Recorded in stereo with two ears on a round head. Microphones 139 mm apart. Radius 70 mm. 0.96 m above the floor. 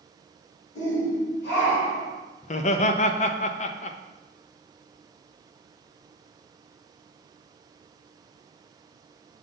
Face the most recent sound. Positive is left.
turn(degrees=45)  # may be behind; listen again after turning